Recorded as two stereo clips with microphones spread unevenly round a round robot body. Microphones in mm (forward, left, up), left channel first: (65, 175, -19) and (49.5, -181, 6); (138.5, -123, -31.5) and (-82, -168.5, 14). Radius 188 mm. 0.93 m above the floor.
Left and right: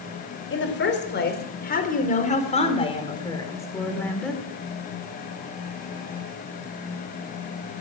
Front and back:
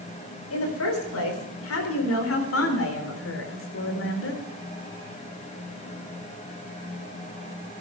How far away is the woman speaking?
About 4 m.